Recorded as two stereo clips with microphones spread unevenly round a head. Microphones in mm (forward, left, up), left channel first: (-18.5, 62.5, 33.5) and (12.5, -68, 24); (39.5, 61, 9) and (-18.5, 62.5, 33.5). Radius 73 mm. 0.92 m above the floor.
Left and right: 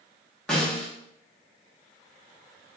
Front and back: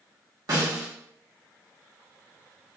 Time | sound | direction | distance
0.5 | a snare drum | 170° right | 1.0 m